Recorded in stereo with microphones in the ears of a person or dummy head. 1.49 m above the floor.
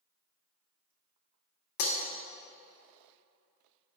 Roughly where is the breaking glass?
Left.